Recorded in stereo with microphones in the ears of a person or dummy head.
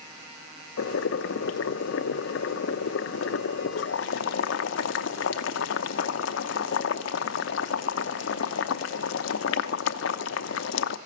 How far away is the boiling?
About 0.8 m.